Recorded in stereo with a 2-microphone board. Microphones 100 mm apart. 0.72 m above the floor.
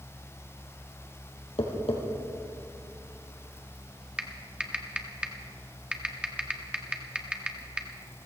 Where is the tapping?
70° left (ahead or behind), 3.5 m.